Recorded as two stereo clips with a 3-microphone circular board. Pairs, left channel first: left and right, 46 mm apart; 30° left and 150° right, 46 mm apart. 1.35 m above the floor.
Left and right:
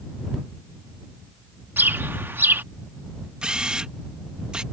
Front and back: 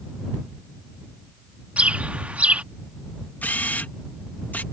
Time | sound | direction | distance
1.8 | a bird | 100° right | ?
3.4 | a camera shutter | 20° right | ?